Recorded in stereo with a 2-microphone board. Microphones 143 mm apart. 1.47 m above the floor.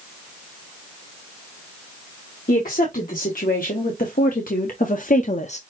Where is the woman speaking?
80° left, 2.5 m; by 5.6 s 50° left (ahead or behind), 0.7 m.